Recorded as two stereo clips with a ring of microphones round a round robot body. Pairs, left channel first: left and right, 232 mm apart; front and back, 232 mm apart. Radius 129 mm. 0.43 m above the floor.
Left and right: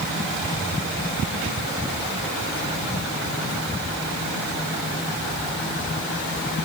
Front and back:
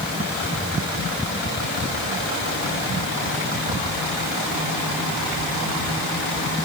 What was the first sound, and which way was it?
Only background noise.